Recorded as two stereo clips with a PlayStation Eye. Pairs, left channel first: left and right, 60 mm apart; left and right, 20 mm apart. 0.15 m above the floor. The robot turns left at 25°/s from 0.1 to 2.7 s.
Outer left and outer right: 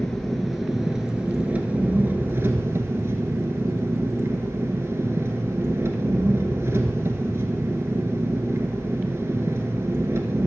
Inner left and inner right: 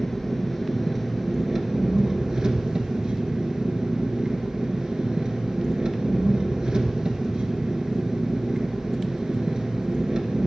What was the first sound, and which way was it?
An engine running, 10° left.